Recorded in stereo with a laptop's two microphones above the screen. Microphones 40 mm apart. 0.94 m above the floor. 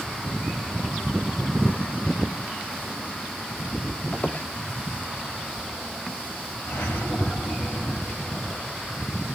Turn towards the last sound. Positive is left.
turn(degrees=70)  # may be behind; listen again after turning